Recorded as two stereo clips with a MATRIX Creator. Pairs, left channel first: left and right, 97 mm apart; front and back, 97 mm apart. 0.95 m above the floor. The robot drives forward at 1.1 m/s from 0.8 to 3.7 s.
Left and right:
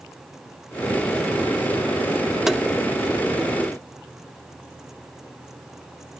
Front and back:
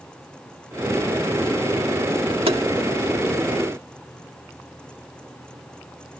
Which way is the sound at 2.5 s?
175° right.